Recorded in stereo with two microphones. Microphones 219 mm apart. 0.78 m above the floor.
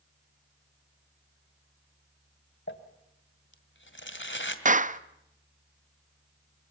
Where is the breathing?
I don't hear breathing.